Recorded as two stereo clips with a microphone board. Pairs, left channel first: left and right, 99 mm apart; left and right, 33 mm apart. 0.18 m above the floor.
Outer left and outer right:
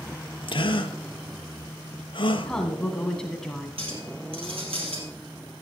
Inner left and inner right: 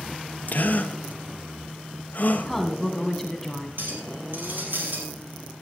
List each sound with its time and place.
0.5 s a gasp: 60° left (ahead or behind), 0.9 m
2.5 s a woman speaking: 5° left (ahead or behind), 1.3 m
3.8 s a clink: 70° right (ahead or behind), 3.5 m